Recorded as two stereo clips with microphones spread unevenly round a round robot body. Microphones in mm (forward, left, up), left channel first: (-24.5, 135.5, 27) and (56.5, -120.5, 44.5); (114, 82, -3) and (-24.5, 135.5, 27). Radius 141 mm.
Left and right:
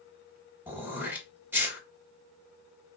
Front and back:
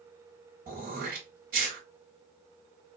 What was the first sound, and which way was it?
Throat clearing, 155° right.